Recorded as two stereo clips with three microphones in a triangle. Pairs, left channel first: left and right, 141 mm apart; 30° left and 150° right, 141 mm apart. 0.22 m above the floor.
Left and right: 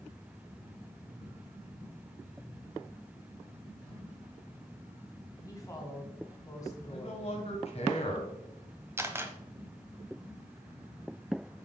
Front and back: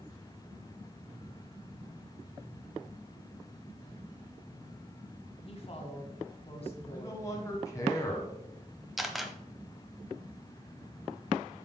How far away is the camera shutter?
About 0.8 m.